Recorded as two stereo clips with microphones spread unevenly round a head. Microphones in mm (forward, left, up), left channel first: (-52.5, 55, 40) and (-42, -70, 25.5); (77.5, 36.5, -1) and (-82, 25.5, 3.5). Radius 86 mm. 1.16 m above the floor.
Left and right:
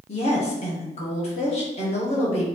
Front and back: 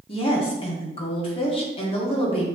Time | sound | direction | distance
0.1 | a woman speaking | 55° left | 1.5 m